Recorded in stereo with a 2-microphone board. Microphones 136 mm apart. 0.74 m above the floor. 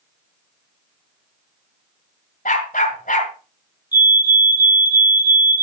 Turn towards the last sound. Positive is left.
turn(degrees=30)  # may be behind; listen again after turning